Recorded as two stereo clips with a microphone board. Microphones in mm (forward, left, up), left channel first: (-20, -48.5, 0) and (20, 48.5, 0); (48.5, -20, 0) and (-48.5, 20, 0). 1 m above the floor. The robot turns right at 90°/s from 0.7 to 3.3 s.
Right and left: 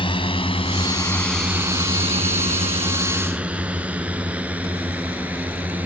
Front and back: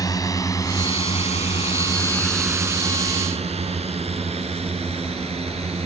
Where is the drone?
80° right; by 5.9 s 145° left.